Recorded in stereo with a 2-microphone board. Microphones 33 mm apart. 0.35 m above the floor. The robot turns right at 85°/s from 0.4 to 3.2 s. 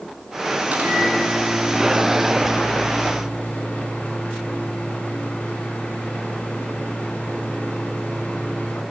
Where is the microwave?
145° right, 3 m; by 8.8 s 70° left, 3 m.